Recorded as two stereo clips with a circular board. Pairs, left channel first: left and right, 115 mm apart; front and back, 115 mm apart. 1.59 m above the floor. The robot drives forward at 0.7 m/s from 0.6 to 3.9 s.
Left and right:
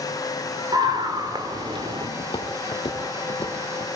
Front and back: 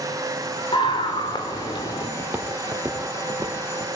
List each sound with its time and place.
0.7 s a scream: 40° right, 5 m; by 2.1 s 50° right, 4 m
2.2 s footsteps: 100° left, 2 m; by 3.9 s 115° left, 4.5 m